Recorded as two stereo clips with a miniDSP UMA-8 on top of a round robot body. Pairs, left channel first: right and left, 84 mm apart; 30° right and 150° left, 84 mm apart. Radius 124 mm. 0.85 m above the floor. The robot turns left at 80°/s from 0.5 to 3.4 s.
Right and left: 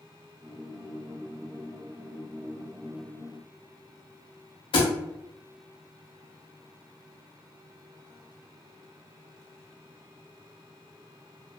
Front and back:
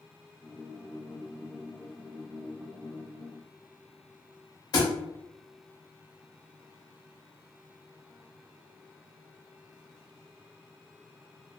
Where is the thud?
75° right, 0.5 m.